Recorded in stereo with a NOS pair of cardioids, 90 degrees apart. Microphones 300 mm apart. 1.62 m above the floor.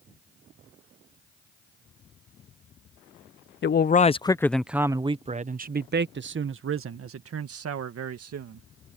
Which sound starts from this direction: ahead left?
A man speaking, at 3.6 s.